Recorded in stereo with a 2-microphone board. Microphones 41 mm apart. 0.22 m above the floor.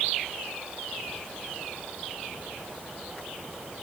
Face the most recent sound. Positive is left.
No sound to turn to.